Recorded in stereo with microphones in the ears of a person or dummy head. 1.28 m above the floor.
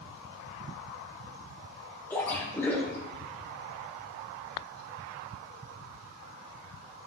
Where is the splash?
15° left (ahead or behind), 3 m.